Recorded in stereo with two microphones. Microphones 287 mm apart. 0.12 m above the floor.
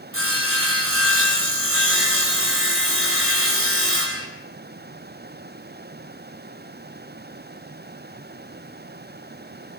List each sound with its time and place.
0.1 s sawing: 45° right (ahead or behind), 4 m